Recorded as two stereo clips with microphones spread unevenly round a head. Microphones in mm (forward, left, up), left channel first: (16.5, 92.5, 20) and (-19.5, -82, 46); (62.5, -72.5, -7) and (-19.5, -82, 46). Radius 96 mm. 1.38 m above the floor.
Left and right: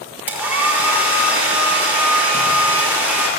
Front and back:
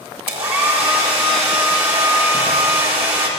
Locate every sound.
0.3 s a hair dryer: straight behind, 5.5 m